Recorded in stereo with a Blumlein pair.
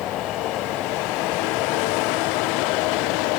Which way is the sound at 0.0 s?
30° left.